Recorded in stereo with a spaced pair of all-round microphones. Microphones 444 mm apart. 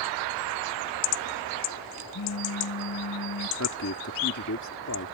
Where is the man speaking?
40° left (ahead or behind).